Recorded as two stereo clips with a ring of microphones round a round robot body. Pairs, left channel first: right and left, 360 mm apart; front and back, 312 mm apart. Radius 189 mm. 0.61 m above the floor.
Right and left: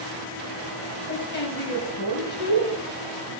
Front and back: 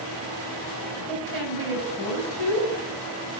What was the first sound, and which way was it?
A woman speaking, 150° right.